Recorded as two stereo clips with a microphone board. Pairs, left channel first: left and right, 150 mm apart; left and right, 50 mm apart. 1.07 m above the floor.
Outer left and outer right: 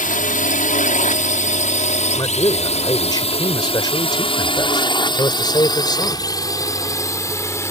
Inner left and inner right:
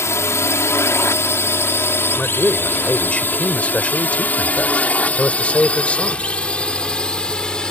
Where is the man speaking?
30° left (ahead or behind).